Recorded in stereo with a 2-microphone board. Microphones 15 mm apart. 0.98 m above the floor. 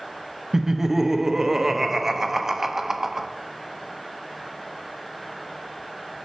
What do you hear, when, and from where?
0.5 s laughter: 25° right (ahead or behind), 0.8 m